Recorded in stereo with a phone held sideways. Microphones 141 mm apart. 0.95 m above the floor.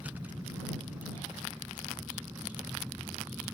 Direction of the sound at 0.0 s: 10° right (ahead or behind).